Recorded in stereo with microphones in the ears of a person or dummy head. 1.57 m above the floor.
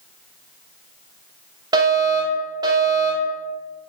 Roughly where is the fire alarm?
Right.